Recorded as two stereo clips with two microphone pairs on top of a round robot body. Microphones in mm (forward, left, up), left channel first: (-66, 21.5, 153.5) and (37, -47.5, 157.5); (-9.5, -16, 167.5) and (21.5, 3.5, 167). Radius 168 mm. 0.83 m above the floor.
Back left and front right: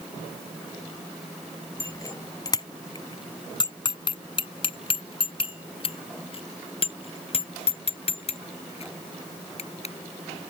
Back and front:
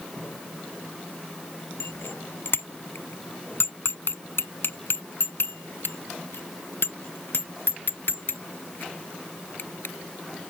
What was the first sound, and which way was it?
A bicycle bell, 150° right.